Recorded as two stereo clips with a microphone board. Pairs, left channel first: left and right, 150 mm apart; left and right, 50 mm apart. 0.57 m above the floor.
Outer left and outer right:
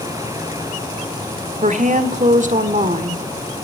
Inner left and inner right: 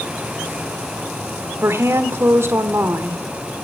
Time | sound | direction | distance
1.6 | a woman speaking | 55° right (ahead or behind) | 1.3 m